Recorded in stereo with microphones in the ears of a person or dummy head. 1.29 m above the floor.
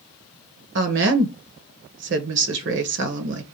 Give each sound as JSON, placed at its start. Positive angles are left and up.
{"t": 0.8, "sound": "a woman speaking", "side_deg": -60, "distance_m": 0.8}